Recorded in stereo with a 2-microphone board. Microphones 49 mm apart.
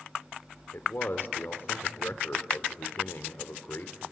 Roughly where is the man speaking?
Left.